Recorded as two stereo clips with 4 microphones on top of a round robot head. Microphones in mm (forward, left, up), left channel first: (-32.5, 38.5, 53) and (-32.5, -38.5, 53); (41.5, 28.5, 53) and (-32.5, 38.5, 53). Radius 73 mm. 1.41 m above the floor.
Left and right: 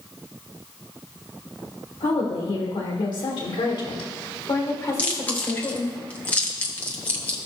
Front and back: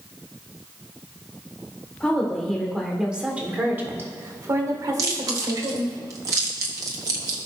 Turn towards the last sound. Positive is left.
turn(degrees=150)